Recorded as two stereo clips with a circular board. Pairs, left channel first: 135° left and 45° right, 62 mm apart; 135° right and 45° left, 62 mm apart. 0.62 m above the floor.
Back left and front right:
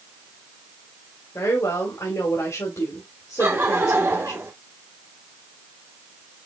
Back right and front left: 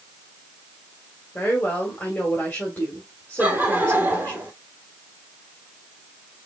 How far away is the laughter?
About 2 m.